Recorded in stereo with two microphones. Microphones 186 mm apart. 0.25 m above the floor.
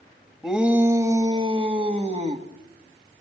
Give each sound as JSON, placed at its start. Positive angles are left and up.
{"t": 0.4, "sound": "a shout", "side_deg": 0, "distance_m": 1.1}